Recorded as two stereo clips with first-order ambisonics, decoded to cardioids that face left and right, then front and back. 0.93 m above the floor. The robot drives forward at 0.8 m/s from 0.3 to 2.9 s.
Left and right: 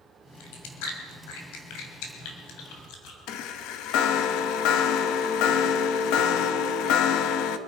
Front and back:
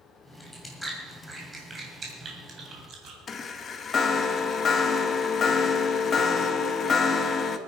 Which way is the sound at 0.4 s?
80° left.